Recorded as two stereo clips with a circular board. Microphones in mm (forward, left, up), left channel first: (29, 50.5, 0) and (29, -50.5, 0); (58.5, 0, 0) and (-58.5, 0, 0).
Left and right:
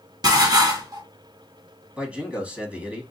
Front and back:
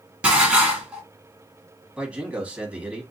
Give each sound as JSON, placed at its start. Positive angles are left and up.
{"t": 0.2, "sound": "dishes clattering", "azimuth_deg": -105, "distance_m": 1.2}
{"t": 2.0, "sound": "a man speaking", "azimuth_deg": -130, "distance_m": 1.0}